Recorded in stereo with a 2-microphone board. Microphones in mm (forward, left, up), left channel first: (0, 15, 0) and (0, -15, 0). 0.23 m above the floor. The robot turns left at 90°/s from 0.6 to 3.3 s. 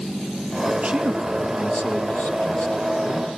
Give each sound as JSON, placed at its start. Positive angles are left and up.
{"t": 0.8, "sound": "a man speaking", "azimuth_deg": -115, "distance_m": 6.0}